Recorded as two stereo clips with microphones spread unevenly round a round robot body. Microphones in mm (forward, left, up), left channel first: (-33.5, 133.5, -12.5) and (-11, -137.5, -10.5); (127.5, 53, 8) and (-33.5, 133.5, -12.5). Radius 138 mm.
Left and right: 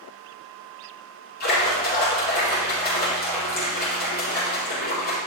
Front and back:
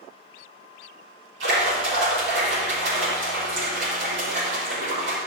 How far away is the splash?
About 6 m.